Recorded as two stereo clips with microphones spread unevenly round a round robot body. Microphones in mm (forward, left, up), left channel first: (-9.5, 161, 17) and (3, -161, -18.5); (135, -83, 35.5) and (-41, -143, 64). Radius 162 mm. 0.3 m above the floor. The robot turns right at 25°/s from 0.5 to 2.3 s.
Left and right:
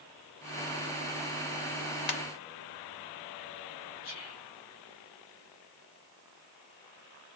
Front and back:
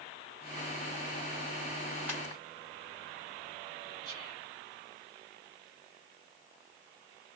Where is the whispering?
105° left, 1.8 m.